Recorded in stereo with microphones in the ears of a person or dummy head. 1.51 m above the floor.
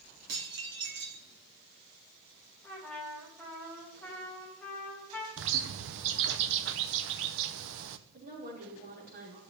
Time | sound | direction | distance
0.3 | dishes clattering | 65° right (ahead or behind) | 2.5 m
2.6 | a trumpet | 5° left (ahead or behind) | 2.5 m
5.4 | a bird | 65° right (ahead or behind) | 0.7 m
8.1 | a woman speaking | 45° right (ahead or behind) | 5 m